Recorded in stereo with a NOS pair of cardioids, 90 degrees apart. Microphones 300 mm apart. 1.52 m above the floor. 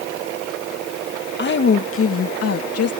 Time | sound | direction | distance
1.4 | a woman speaking | 35° left | ?